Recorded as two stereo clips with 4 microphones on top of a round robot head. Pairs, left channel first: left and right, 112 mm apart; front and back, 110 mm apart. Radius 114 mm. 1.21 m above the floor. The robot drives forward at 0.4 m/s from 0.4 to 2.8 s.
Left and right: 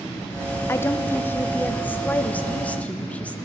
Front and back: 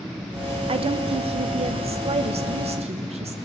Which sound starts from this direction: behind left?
A woman speaking, at 0.7 s.